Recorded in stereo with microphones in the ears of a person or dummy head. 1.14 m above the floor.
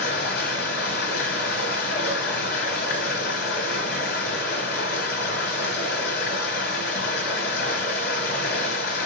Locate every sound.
0.0 s running water: 70° left (ahead or behind), 2.5 m